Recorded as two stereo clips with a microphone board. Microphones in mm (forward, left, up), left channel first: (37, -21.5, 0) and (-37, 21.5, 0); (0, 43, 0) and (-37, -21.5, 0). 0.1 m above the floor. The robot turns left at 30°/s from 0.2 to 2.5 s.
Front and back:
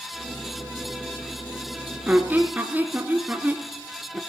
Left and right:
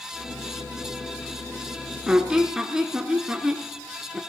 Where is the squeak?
175° right, 1.2 m; by 4.2 s 170° left, 1.2 m.